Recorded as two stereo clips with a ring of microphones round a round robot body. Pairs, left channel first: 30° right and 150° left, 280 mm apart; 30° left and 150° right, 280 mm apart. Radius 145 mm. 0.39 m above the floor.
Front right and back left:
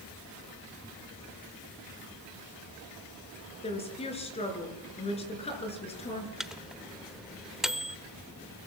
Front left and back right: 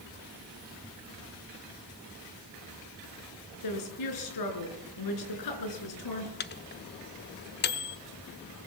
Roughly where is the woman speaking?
Ahead left.